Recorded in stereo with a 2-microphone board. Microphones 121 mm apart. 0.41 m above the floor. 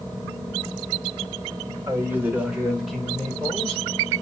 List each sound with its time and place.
1.9 s a man speaking: 20° right (ahead or behind), 1.0 m; by 3.8 s 10° left (ahead or behind), 1.7 m